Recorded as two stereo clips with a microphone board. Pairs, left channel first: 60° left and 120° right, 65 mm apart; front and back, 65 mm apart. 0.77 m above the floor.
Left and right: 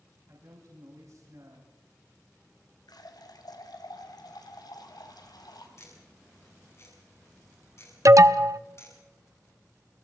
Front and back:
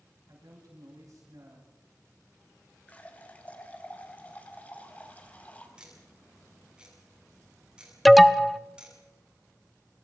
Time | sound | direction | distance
0.3 | a man speaking | 155° right | 7 m
2.9 | a running tap | 65° left | 2.5 m
5.8 | ticking | 105° left | 8 m
8.1 | an alarm | 90° right | 0.8 m